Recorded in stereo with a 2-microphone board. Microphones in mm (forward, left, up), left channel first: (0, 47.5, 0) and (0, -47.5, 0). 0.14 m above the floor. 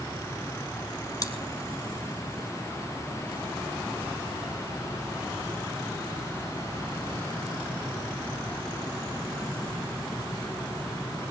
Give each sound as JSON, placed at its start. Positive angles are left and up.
{"t": 1.2, "sound": "chewing", "side_deg": 40, "distance_m": 1.3}